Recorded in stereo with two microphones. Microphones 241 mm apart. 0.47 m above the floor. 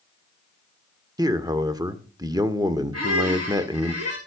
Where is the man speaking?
15° right (ahead or behind), 1.2 m.